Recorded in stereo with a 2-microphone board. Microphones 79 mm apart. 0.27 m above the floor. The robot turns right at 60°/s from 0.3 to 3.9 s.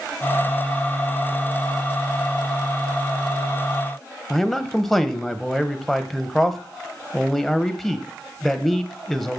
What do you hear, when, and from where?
4.3 s a man speaking: centre (ahead or behind), 1.2 m